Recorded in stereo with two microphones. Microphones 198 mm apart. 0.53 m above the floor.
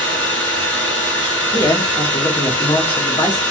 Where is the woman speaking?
20° left (ahead or behind), 1.0 m.